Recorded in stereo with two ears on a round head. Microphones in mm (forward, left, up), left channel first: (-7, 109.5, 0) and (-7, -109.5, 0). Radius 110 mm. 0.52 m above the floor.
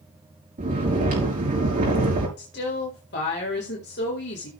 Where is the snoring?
35° right (ahead or behind), 5 m.